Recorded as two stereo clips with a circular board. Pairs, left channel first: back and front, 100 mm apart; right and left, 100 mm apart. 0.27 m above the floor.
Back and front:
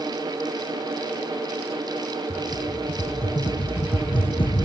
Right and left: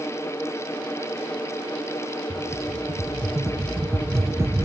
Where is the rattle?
150° left.